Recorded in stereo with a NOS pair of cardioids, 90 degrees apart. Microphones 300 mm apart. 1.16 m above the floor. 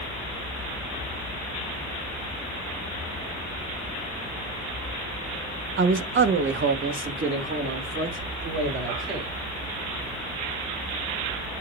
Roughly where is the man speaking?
Ahead right.